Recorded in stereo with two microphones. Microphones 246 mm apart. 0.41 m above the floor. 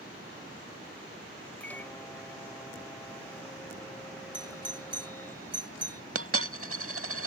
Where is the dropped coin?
65° right (ahead or behind).